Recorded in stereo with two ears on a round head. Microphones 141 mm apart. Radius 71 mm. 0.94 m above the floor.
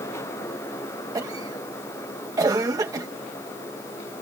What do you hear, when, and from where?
1.1 s a cough: 25° right (ahead or behind)